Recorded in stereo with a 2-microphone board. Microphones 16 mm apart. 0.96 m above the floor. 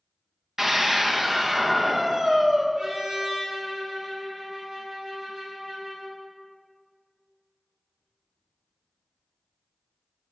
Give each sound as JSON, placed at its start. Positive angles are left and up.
{"t": 0.6, "sound": "a scream", "side_deg": -35, "distance_m": 1.2}
{"t": 2.8, "sound": "a trumpet", "side_deg": -55, "distance_m": 3.0}